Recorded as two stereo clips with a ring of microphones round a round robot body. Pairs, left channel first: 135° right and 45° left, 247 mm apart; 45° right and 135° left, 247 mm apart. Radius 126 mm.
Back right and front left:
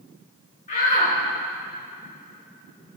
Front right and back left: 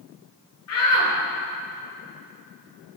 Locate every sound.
0.7 s a shout: 75° right, 5 m